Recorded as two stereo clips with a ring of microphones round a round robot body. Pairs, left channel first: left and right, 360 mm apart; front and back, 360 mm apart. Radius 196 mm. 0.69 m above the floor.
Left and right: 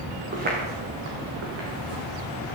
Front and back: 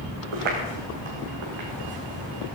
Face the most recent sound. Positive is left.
turn(degrees=-140)